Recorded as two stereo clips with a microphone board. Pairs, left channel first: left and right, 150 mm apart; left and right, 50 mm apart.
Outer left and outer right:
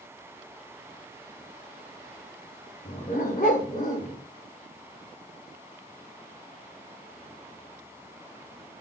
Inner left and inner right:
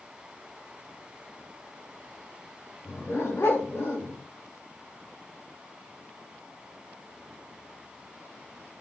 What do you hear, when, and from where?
2.8 s a dog barking: 60° left (ahead or behind), 8 m